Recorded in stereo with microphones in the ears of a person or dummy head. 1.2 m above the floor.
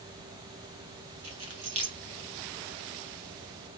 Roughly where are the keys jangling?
Right.